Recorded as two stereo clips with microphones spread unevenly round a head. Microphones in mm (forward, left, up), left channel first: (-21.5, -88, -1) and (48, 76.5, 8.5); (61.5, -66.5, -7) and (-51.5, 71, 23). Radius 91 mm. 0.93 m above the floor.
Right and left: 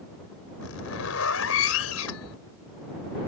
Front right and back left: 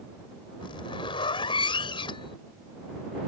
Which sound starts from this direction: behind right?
A zipper, at 0.6 s.